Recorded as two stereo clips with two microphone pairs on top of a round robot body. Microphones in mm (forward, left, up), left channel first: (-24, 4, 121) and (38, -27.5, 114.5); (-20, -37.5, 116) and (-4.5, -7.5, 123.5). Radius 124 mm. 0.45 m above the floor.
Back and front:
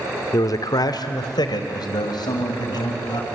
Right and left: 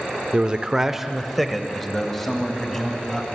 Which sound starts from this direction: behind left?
A man speaking, at 0.3 s.